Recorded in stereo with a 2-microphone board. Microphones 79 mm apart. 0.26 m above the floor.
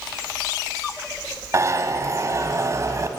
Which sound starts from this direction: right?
A zipper, at 1.5 s.